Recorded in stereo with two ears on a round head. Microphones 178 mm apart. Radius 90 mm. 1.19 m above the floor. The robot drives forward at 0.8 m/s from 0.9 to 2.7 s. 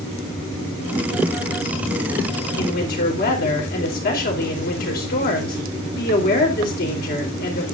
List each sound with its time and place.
2.6 s a woman speaking: 50° left (ahead or behind), 4 m